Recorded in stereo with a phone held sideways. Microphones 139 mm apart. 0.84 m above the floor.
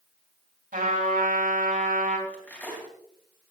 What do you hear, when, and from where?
0.7 s a trumpet: 80° right, 4 m
2.3 s cutlery clinking: 10° left (ahead or behind), 4 m